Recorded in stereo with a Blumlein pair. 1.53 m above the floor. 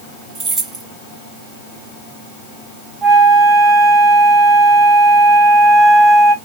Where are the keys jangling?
20° right, 1.5 m.